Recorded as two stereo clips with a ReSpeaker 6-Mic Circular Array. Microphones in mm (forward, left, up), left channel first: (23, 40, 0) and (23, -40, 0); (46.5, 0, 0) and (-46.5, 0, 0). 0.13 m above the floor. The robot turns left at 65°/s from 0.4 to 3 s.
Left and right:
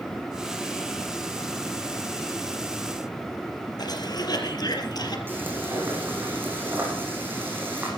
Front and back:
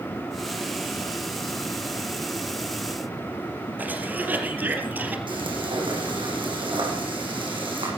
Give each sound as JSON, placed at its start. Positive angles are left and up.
{"t": 3.8, "sound": "a cough", "azimuth_deg": 110, "distance_m": 4.0}
{"t": 5.3, "sound": "frying", "azimuth_deg": -155, "distance_m": 7.5}